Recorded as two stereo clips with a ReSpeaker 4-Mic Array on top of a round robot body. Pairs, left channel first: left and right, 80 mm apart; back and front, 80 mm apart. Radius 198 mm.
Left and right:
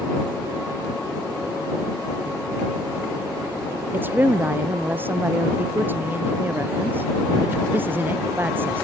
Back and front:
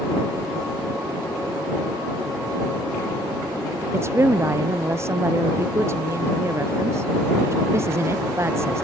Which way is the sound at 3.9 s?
40° right.